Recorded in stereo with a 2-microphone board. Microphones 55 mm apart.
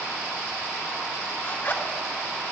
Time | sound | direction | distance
1.4 | a zipper | 40° left (ahead or behind) | 1.5 m